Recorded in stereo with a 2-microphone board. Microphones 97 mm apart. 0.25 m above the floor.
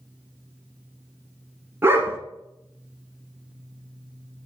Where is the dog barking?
25° right (ahead or behind), 1.2 m.